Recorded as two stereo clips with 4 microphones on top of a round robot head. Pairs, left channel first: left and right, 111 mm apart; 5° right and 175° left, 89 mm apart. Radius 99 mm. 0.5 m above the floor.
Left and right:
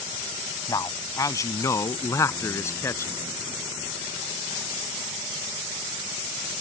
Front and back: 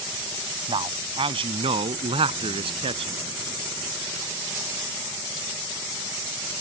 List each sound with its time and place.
0.7 s a man speaking: 150° left; by 3.2 s 155° left